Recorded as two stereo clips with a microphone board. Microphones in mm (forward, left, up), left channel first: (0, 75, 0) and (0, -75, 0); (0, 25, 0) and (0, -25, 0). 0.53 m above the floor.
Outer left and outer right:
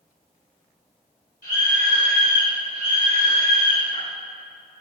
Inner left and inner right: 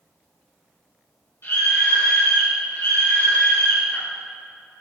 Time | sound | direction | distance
1.4 | a scream | 70° left (ahead or behind) | 2.5 m